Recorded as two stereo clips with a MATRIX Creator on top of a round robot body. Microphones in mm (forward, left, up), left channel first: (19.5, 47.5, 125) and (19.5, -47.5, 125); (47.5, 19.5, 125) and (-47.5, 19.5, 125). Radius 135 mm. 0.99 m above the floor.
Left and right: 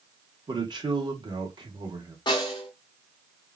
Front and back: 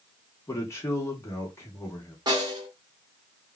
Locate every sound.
0.5 s a man speaking: 55° right, 1.3 m
2.3 s a snare drum: 135° left, 1.5 m